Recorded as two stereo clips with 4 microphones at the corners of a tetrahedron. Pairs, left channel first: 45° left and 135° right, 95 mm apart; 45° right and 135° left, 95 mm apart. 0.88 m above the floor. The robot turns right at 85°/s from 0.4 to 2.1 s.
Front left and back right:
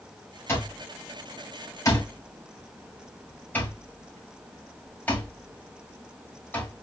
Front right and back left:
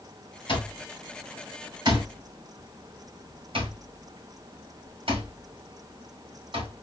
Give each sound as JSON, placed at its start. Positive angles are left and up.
{"t": 0.5, "sound": "an alarm clock", "azimuth_deg": -20, "distance_m": 3.0}